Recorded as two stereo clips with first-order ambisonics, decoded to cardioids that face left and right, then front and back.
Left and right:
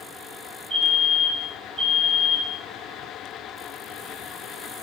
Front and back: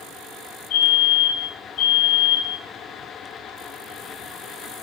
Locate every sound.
0.7 s a fire alarm: 25° right, 5 m